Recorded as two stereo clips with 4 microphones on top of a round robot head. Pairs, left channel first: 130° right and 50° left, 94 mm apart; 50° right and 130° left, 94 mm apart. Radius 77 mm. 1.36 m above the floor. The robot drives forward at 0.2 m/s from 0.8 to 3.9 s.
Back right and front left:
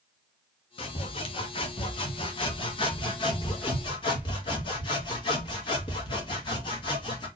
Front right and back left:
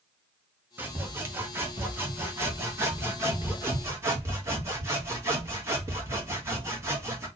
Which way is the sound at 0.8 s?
160° right.